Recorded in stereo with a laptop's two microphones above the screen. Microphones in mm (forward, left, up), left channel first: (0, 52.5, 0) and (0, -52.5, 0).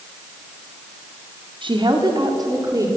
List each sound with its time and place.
1.6 s a woman speaking: 50° right (ahead or behind), 1.6 m; by 2.9 s 35° right (ahead or behind), 2 m